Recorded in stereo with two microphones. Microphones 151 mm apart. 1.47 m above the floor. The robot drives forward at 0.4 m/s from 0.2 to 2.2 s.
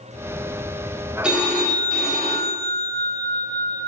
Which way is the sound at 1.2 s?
5° right (ahead or behind).